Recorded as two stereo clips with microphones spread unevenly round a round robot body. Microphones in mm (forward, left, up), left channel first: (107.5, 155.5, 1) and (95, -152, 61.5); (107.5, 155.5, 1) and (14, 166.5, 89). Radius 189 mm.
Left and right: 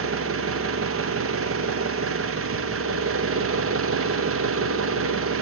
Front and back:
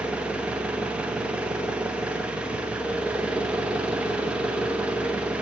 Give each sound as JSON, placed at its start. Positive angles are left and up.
{"t": 0.0, "sound": "an engine running", "azimuth_deg": -50, "distance_m": 0.7}